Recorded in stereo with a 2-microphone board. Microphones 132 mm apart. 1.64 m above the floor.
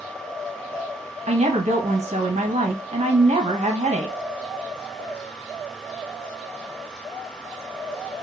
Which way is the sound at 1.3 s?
60° right (ahead or behind).